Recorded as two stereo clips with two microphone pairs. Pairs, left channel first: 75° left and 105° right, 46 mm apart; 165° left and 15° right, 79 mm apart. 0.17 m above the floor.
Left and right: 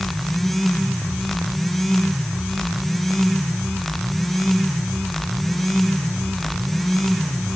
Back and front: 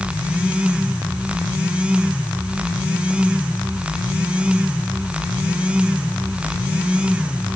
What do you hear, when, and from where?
Only background noise.